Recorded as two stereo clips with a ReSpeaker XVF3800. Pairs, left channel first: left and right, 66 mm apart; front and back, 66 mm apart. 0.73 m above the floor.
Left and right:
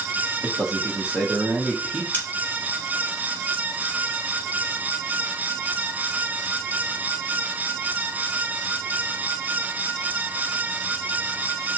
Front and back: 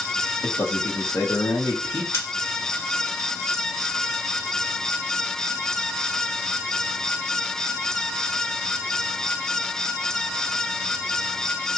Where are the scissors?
35° left, 1.7 m.